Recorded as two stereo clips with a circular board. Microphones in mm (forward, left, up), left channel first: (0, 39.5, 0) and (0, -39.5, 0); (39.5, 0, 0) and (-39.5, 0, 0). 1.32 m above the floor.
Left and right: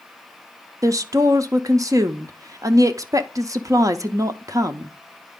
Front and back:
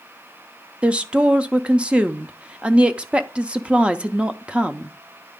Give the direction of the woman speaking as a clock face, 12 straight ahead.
4 o'clock.